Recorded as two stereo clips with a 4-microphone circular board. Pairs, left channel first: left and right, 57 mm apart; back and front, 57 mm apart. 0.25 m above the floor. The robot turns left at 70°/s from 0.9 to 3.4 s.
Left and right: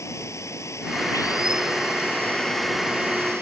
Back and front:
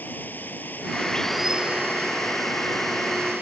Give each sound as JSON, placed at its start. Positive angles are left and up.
{"t": 0.0, "sound": "running water", "azimuth_deg": 125}